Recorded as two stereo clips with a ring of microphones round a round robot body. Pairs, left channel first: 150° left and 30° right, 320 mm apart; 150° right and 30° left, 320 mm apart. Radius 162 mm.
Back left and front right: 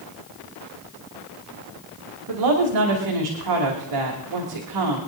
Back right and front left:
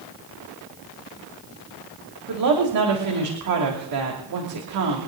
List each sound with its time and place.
2.3 s a woman speaking: 5° right, 2.5 m